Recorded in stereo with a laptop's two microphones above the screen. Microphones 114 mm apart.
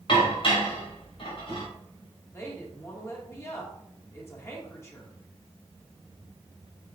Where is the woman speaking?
25° left (ahead or behind), 1.5 m.